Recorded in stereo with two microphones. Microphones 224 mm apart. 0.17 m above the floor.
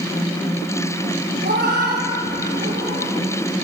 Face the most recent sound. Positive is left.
turn(degrees=-50)  # may be behind; listen again after turning